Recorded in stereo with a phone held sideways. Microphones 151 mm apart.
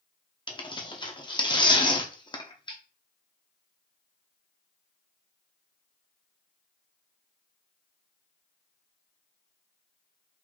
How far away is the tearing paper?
About 0.8 m.